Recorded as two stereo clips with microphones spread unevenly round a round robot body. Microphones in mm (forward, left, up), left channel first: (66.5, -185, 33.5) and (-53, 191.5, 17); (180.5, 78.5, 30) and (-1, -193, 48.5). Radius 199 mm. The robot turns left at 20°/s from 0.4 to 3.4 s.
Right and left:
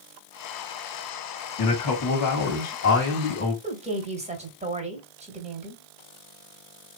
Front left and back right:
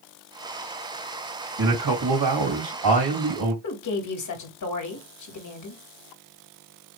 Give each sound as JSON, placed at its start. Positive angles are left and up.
{"t": 1.6, "sound": "a man speaking", "azimuth_deg": -105, "distance_m": 3.0}
{"t": 3.6, "sound": "a woman speaking", "azimuth_deg": 35, "distance_m": 1.8}